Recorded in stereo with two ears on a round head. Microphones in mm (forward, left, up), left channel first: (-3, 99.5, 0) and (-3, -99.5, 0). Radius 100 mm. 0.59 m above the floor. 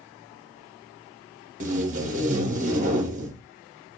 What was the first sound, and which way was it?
Tape being pulled, 35° right (ahead or behind).